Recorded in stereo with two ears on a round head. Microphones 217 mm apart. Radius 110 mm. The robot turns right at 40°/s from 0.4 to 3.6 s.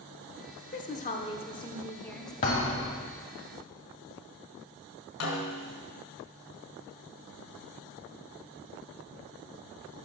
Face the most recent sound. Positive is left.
turn(degrees=60)  # may be behind; listen again after turning